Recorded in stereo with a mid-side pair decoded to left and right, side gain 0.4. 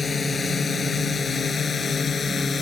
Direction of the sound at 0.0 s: 40° left.